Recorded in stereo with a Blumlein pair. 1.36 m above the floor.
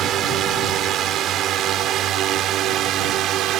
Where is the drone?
30° right; by 3.6 s 35° right.